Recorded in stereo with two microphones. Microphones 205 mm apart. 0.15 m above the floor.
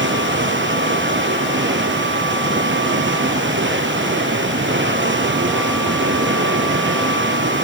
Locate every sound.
0.0 s running water: 70° right (ahead or behind), 2 m